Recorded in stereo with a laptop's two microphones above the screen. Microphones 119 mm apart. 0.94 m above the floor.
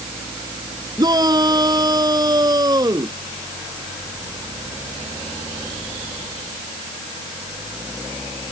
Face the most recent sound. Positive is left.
turn(degrees=-30)  # may be behind; listen again after turning